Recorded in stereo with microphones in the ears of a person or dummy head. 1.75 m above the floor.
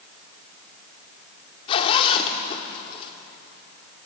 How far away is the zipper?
About 1.9 m.